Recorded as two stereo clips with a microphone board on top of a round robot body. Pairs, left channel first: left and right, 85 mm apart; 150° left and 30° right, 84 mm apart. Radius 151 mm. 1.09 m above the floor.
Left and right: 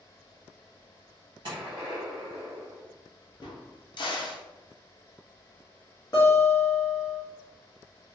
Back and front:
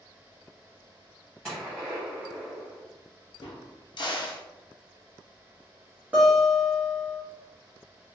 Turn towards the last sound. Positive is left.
turn(degrees=45)